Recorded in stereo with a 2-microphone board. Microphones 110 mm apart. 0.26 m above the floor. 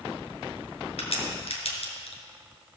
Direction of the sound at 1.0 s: 65° left (ahead or behind).